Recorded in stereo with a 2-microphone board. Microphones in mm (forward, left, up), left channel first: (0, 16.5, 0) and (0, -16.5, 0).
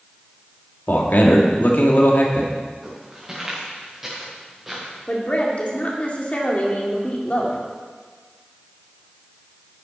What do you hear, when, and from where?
0.9 s a man speaking: 65° left (ahead or behind), 2.0 m
2.8 s footsteps: 15° right (ahead or behind), 5.5 m; by 4.9 s 5° right (ahead or behind), 4.5 m
5.1 s a woman speaking: 40° left (ahead or behind), 2.5 m